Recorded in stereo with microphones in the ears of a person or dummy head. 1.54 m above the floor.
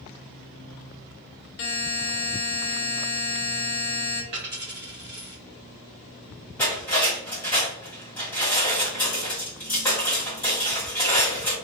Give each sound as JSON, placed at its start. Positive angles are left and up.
{"t": 1.6, "sound": "a buzzer", "side_deg": 65, "distance_m": 0.6}
{"t": 4.3, "sound": "a dropped coin", "side_deg": -25, "distance_m": 1.1}
{"t": 6.6, "sound": "cutlery clinking", "side_deg": 10, "distance_m": 1.5}